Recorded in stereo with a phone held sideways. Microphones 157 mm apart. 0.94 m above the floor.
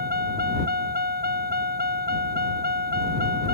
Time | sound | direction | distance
0.0 | a vehicle | 85° right | ?